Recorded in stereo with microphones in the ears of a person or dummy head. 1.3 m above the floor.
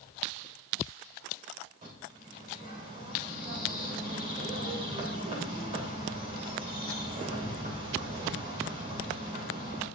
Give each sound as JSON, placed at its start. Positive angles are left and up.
{"t": 1.8, "sound": "a bird", "side_deg": -40, "distance_m": 3.5}